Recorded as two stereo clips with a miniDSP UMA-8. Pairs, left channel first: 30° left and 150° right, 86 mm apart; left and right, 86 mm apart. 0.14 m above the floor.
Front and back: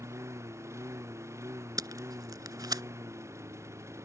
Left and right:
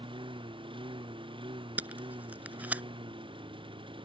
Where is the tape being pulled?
155° right.